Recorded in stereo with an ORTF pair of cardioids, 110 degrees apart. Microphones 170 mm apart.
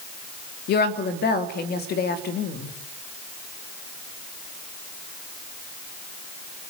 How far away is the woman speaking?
About 3 m.